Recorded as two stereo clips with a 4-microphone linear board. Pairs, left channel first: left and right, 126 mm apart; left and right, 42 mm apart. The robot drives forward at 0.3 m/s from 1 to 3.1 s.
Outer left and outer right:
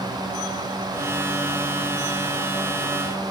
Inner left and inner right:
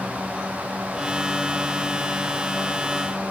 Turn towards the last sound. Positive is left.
No sound to turn to.